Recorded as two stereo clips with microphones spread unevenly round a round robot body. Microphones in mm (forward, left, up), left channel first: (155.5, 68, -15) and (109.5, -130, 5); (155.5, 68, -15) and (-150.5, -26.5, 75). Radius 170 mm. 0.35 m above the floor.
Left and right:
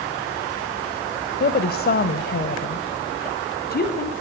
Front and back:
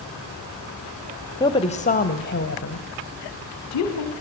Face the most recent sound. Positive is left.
turn(degrees=40)